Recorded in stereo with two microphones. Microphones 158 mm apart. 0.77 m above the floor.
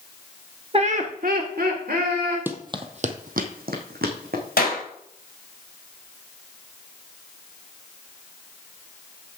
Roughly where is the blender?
I don't hear a blender.